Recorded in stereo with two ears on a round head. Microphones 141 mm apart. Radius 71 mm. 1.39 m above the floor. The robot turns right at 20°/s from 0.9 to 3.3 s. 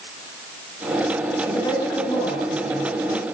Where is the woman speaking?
20° left, 9.5 m; by 3.2 s 55° left, 9.5 m.